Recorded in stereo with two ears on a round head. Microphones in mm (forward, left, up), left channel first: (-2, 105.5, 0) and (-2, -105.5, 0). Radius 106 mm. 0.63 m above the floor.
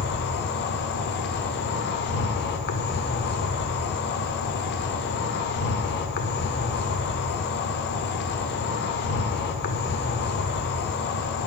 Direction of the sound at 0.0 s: 45° left (ahead or behind).